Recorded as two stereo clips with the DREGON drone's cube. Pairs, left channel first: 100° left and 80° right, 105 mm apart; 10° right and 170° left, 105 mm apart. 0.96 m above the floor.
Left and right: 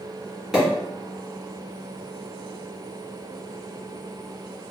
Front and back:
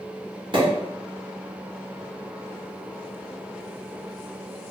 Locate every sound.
0.5 s a pop: 160° right, 1.8 m